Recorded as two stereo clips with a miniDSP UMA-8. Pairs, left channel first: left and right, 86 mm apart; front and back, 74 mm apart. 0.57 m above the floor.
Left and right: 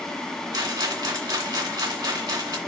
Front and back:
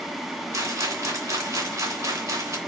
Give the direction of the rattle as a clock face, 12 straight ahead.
4 o'clock.